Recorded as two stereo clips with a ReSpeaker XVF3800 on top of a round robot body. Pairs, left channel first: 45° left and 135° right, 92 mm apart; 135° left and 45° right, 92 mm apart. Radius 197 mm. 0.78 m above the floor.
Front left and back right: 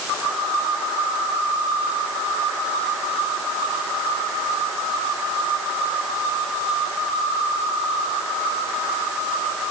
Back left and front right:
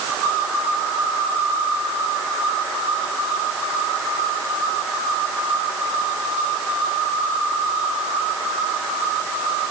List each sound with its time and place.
Only background noise.